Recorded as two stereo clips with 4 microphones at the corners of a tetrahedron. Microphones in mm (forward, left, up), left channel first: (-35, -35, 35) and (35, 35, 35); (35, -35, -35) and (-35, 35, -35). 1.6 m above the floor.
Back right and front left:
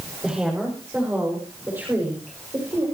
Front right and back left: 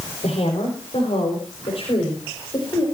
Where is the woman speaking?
35° right, 6.5 m; by 2.8 s 10° right, 7 m.